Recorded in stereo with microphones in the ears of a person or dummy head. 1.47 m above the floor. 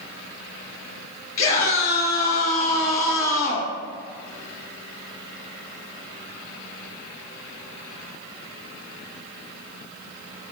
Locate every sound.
1.4 s a scream: 50° left (ahead or behind), 3 m